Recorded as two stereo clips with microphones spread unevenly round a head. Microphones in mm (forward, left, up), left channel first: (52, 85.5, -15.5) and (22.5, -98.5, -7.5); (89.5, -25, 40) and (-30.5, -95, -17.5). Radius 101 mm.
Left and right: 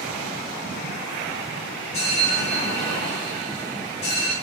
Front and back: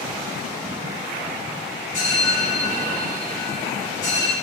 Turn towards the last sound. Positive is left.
turn(degrees=120)